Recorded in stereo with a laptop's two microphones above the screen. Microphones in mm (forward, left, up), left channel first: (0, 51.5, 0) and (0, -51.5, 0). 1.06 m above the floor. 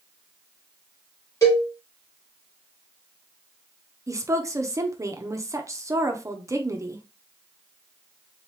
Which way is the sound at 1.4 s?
30° left (ahead or behind).